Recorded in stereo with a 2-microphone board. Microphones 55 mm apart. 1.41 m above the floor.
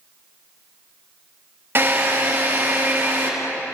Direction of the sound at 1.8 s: 40° right (ahead or behind).